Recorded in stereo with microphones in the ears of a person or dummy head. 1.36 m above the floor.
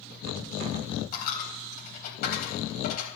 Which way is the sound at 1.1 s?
50° left (ahead or behind).